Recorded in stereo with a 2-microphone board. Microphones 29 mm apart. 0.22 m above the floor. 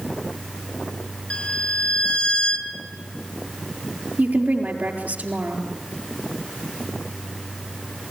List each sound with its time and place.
1.3 s a violin: 40° left (ahead or behind), 1.8 m
4.2 s a woman speaking: 70° right (ahead or behind), 4.5 m